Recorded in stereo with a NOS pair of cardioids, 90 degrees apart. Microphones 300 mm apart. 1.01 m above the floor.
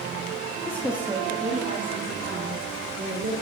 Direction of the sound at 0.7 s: 10° left.